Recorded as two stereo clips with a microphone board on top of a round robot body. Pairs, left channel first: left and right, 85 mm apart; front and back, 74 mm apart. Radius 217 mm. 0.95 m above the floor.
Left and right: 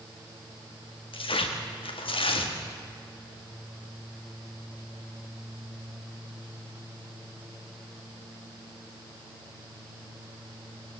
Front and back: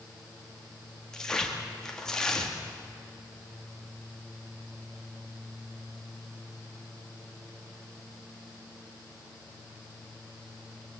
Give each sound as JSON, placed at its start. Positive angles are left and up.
{"t": 1.1, "sound": "tearing paper", "azimuth_deg": 80, "distance_m": 1.7}